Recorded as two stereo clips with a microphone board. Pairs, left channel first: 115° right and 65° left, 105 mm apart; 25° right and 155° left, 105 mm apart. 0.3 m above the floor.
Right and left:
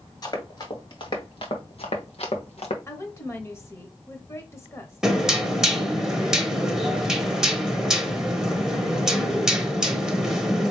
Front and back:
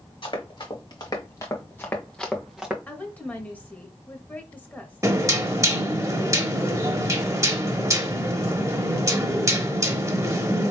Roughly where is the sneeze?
I don't hear a sneeze.